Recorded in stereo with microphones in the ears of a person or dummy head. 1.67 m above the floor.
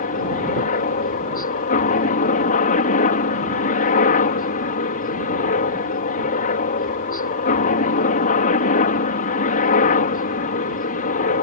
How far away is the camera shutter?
No camera shutter in this recording.